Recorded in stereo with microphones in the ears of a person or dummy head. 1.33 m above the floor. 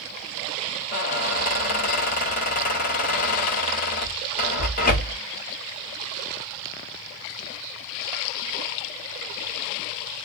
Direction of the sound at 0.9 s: 45° left (ahead or behind).